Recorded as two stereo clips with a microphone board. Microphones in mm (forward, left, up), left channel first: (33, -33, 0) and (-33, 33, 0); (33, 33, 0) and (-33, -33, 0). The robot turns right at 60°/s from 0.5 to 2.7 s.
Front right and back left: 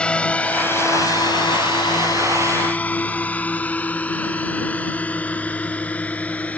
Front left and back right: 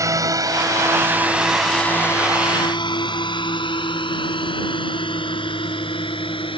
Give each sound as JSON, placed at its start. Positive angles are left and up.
{"t": 0.0, "sound": "a drone", "azimuth_deg": -115}